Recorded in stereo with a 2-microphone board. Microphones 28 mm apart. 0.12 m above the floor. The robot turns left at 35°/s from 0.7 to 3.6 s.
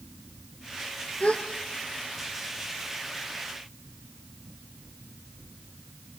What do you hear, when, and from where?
1.2 s a gasp: 45° left (ahead or behind), 2.5 m; by 1.4 s 50° left (ahead or behind), 2.5 m